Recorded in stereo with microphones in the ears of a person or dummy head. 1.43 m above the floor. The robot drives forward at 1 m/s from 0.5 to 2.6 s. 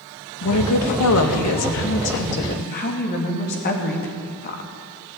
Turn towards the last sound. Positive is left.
turn(degrees=45)  # may be behind; listen again after turning